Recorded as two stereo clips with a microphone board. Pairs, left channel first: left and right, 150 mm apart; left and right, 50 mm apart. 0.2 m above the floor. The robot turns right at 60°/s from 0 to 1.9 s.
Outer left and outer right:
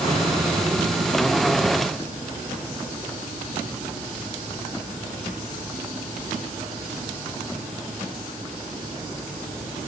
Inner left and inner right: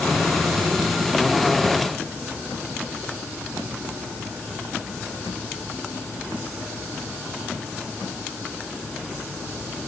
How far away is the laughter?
I don't hear laughter.